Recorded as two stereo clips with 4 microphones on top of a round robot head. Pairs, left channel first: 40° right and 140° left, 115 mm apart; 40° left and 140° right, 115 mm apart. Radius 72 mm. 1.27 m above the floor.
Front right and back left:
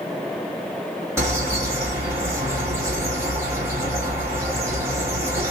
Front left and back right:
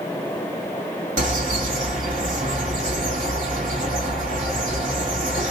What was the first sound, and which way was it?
A bird, 150° right.